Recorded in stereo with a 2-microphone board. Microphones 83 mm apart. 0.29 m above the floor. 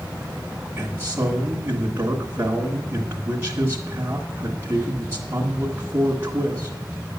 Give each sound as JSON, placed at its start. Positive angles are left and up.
{"t": 0.8, "sound": "a man speaking", "side_deg": -30, "distance_m": 1.4}